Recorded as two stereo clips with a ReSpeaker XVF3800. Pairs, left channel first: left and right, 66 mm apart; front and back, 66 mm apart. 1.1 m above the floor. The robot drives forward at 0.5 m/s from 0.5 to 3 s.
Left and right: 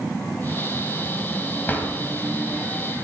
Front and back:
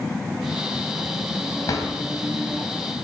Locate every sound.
1.7 s a drawer: 25° left, 2.5 m; by 1.9 s 30° left, 2.5 m